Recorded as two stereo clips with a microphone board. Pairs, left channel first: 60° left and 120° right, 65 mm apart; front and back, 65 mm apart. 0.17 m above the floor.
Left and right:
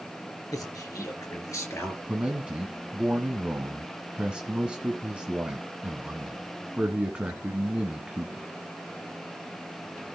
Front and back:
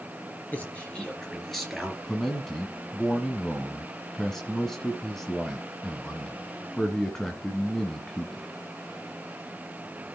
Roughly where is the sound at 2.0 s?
Right.